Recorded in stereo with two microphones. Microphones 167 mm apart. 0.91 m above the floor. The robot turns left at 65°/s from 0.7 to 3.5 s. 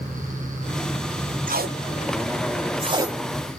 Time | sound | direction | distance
1.5 | tape being pulled | 55° right (ahead or behind) | 0.5 m